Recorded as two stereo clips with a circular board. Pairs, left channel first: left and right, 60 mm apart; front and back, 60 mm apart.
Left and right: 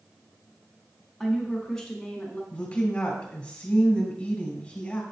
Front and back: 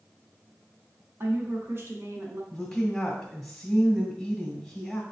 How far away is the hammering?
No hammering in this recording.